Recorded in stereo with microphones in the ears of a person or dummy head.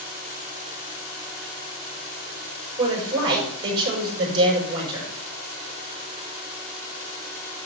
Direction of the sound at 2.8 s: 30° right (ahead or behind).